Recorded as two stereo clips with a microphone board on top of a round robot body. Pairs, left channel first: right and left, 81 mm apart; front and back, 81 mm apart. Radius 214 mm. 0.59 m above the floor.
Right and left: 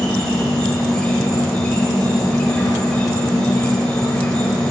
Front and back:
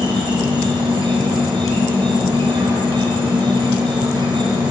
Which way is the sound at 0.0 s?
170° right.